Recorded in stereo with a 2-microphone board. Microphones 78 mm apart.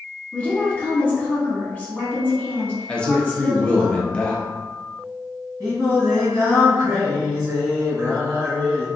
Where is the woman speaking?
10° left (ahead or behind), 0.8 m.